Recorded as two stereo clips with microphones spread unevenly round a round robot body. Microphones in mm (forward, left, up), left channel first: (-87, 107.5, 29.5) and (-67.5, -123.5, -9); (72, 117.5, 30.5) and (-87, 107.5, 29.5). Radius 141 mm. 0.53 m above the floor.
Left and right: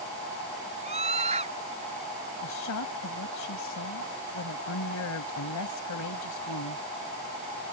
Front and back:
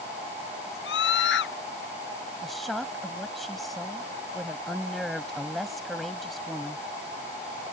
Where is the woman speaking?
95° left.